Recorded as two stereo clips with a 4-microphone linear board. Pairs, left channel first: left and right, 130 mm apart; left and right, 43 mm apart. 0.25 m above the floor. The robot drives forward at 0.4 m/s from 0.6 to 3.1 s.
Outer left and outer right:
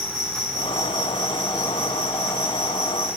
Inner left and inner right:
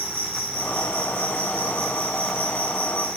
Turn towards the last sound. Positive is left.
turn(degrees=-80)